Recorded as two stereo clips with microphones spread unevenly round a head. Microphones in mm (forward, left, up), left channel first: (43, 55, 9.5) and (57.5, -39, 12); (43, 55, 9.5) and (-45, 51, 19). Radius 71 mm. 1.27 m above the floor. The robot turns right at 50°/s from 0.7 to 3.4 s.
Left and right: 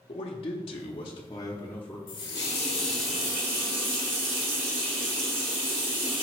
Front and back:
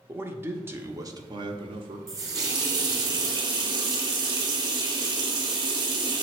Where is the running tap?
140° left, 0.7 m; by 6.2 s 150° right, 0.7 m.